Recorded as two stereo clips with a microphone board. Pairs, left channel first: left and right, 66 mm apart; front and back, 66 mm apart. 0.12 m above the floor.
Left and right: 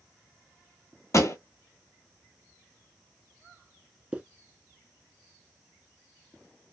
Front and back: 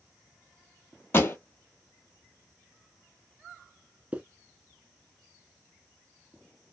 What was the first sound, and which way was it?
A pop, 50° left.